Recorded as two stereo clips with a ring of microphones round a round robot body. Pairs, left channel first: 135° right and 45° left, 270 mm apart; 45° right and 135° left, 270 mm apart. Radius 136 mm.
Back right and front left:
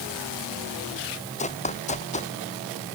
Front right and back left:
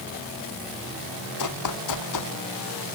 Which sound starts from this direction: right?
Running footsteps, at 1.4 s.